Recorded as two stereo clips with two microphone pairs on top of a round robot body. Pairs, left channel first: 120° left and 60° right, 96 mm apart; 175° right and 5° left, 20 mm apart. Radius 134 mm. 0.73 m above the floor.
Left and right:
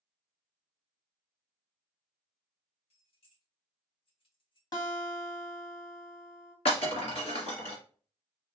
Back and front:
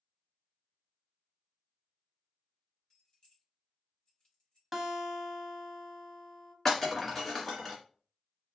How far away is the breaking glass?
About 1.8 m.